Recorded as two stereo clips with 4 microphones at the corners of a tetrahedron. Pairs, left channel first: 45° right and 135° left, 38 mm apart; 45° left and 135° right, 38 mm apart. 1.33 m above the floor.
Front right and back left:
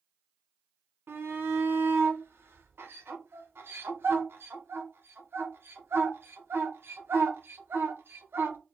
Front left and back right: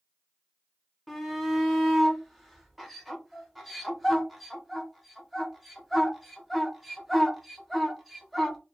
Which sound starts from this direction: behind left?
A shout, at 1.1 s.